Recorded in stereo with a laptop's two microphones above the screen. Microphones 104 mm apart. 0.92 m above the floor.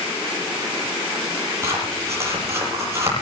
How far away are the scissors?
About 9 m.